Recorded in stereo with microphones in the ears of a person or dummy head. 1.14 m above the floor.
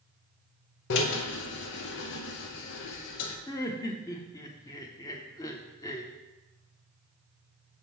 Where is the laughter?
20° left (ahead or behind), 0.7 m.